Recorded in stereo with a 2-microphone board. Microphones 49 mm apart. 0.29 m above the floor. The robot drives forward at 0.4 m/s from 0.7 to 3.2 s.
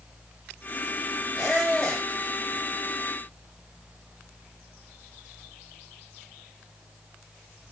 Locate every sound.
1.4 s a squeak: 5° left (ahead or behind), 1.4 m